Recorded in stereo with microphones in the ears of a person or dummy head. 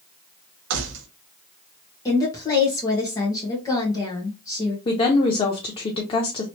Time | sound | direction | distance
0.7 | keys jangling | 65° right (ahead or behind) | 0.7 m
2.0 | a woman speaking | 20° left (ahead or behind) | 1.2 m
4.8 | a woman speaking | 30° left (ahead or behind) | 0.6 m